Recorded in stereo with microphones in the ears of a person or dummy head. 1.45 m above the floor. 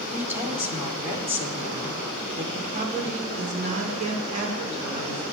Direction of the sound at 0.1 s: 10° right (ahead or behind).